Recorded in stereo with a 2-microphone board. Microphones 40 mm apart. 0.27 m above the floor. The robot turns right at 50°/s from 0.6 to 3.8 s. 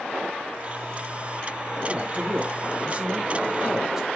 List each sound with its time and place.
1.9 s a man speaking: 125° right, 1.9 m; by 4.1 s 30° right, 1.9 m